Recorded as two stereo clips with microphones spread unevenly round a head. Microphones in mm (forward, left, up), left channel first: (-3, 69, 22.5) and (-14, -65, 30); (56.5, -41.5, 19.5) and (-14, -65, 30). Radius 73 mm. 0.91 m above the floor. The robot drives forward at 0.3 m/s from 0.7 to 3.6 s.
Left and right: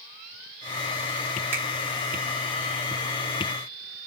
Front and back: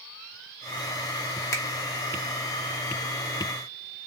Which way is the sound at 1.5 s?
20° right.